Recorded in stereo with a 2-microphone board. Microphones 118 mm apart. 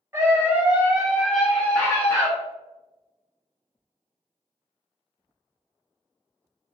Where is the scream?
20° right (ahead or behind), 1.2 m; by 2.3 s 25° left (ahead or behind), 1.1 m.